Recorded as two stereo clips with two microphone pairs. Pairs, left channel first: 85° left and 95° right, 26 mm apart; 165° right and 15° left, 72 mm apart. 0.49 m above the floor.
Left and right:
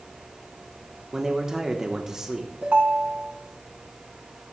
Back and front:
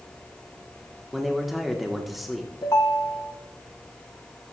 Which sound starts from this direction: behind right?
A ringtone, at 2.6 s.